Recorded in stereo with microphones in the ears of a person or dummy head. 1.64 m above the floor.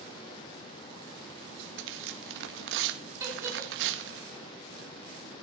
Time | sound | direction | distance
1.4 | tearing paper | 70° right (ahead or behind) | 1.8 m
3.2 | a giggle | 10° right (ahead or behind) | 4.5 m